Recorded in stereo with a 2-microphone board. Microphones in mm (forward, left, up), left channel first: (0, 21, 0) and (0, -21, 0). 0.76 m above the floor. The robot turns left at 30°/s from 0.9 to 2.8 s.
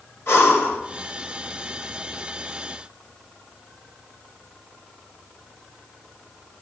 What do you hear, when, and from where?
0.3 s breathing: 70° left (ahead or behind), 4 m